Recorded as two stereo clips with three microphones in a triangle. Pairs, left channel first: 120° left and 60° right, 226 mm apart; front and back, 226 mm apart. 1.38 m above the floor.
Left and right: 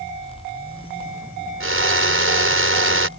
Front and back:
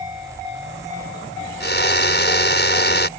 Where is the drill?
40° right.